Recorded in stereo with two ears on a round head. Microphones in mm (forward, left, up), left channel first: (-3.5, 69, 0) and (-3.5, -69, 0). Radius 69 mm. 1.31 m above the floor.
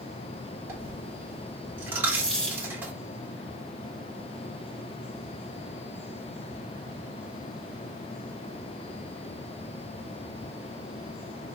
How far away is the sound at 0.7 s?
About 2 m.